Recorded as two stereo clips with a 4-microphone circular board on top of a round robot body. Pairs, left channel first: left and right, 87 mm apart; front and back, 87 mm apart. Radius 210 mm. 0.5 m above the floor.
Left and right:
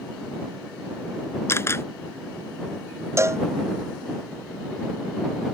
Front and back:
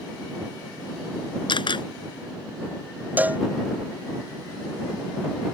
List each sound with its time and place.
1.5 s a camera shutter: 25° left
3.2 s a cowbell: 120° right